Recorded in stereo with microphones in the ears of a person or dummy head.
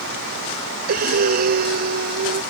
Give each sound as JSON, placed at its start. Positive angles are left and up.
{"t": 0.9, "sound": "breathing", "side_deg": -45, "distance_m": 1.0}